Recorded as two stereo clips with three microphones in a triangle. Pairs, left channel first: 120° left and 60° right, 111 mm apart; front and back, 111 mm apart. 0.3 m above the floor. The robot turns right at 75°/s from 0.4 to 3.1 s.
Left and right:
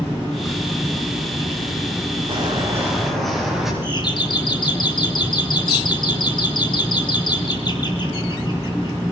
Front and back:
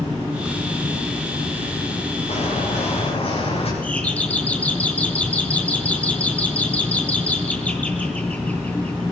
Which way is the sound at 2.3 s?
20° right.